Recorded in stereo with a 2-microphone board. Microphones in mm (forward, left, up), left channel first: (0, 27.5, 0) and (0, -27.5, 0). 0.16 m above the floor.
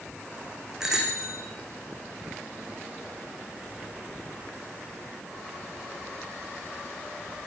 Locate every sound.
0.8 s a bicycle bell: 10° right (ahead or behind), 7 m